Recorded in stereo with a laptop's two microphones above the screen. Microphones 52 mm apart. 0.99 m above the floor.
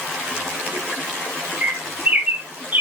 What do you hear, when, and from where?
1.6 s a bird: 35° right (ahead or behind), 0.7 m